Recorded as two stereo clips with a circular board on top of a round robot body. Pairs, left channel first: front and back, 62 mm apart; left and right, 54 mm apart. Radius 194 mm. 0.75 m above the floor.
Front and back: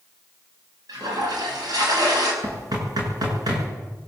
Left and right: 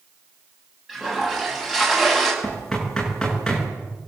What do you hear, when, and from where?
0.9 s a toilet flushing: 175° right, 6 m
2.4 s knocking: 170° left, 7.5 m